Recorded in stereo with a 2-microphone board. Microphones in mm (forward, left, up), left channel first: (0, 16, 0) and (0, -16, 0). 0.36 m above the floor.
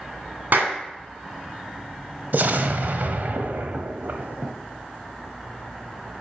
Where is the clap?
65° right (ahead or behind), 2 m.